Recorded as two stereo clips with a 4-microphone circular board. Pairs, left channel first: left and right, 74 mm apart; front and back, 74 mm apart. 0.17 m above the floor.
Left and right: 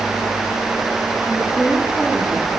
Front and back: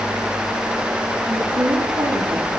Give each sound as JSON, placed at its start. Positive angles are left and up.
{"t": 1.3, "sound": "a woman speaking", "azimuth_deg": 170, "distance_m": 10.0}